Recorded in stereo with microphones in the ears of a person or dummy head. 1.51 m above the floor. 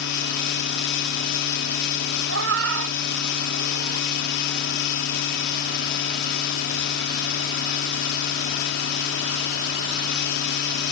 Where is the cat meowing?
70° right (ahead or behind).